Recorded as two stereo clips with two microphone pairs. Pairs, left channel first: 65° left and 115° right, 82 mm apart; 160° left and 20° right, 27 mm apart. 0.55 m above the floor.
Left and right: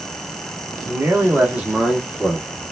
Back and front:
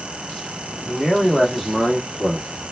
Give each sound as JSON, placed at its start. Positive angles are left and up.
{"t": 0.9, "sound": "a man speaking", "azimuth_deg": -110, "distance_m": 1.3}